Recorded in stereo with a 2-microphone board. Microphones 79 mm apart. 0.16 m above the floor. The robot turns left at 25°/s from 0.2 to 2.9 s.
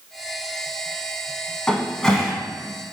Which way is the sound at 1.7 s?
10° left (ahead or behind).